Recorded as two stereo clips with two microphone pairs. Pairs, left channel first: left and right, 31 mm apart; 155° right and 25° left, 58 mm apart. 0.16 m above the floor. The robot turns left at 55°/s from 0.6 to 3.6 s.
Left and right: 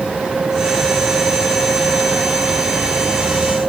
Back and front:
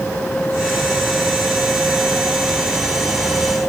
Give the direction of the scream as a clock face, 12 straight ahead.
I don't hear a scream.